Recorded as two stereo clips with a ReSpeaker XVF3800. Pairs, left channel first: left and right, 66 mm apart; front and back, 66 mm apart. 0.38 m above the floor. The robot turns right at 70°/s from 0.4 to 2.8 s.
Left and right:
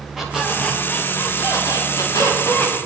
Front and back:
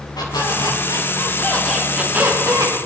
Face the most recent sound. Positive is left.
turn(degrees=165)